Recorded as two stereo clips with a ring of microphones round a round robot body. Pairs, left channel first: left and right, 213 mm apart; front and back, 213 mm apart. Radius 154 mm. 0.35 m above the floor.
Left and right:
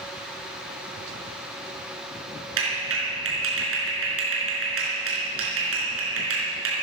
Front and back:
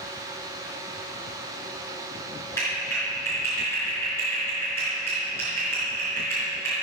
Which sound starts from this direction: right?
A clap, at 2.6 s.